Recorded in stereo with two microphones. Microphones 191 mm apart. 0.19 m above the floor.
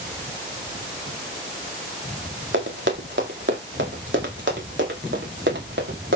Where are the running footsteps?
85° right, 5.5 m; by 6.2 s 80° right, 7 m.